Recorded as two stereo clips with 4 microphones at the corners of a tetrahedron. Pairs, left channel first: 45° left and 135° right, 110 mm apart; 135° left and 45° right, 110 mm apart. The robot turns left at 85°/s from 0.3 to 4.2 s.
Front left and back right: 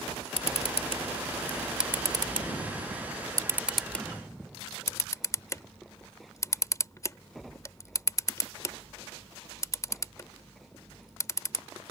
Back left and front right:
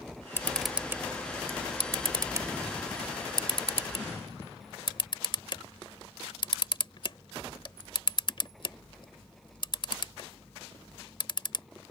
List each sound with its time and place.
0.4 s a camera shutter: 70° left; by 11.7 s 100° left